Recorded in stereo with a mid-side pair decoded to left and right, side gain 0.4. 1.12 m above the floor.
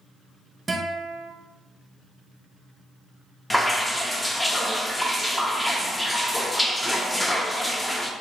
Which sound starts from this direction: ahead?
Dripping, at 3.5 s.